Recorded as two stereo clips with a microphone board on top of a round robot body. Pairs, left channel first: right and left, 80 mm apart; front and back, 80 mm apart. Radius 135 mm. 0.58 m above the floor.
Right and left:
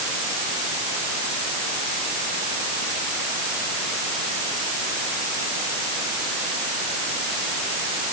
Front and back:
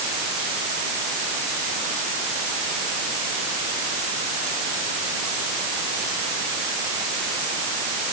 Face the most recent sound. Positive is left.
No sound to turn to.